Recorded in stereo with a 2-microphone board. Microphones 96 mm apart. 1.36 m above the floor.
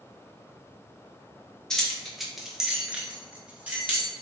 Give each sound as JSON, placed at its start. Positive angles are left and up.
{"t": 1.7, "sound": "keys jangling", "side_deg": 5, "distance_m": 0.6}